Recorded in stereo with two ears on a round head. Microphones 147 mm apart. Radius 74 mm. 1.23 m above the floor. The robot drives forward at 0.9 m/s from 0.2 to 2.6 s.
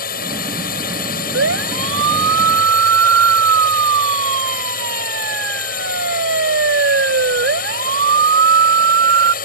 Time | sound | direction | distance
0.0 | a drone | 60° left (ahead or behind) | ?
1.3 | a siren | 80° right | ?